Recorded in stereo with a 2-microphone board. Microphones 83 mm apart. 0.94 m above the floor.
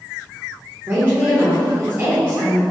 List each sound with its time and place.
0.9 s a woman speaking: 30° right (ahead or behind), 0.9 m